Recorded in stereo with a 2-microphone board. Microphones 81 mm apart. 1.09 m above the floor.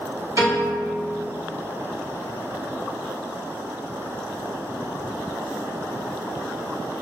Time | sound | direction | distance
0.4 | a piano | 40° right (ahead or behind) | 2.0 m